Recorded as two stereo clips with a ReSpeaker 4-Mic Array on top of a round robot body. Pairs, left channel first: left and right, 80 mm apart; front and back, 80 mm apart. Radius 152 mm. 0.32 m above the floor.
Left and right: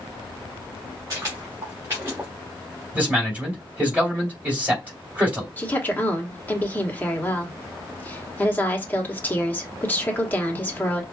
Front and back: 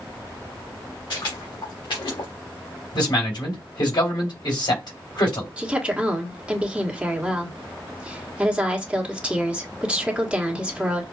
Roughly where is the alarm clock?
I don't hear an alarm clock.